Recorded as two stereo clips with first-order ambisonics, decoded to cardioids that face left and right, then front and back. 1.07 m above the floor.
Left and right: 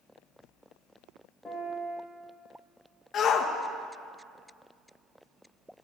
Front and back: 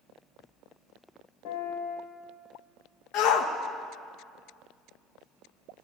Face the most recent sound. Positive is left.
turn(degrees=30)